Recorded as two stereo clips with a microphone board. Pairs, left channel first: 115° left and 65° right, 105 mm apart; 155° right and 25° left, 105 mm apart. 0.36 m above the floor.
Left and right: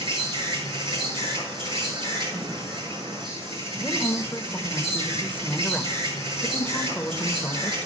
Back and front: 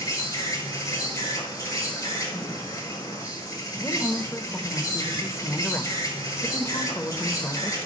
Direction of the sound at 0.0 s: 105° right.